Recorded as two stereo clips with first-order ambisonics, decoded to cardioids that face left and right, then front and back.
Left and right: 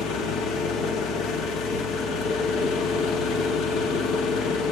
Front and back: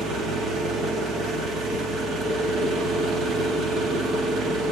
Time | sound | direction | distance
0.0 | an engine running | 125° left | 1.6 m